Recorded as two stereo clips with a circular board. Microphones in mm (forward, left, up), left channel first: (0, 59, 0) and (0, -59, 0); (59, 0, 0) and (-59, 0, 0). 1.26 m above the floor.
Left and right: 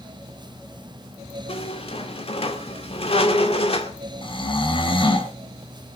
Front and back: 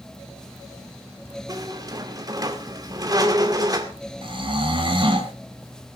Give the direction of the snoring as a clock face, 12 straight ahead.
7 o'clock.